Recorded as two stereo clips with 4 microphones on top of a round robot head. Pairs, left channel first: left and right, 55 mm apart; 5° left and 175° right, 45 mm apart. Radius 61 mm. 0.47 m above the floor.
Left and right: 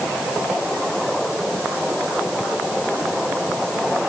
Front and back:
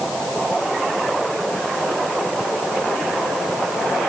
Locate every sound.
Only background noise.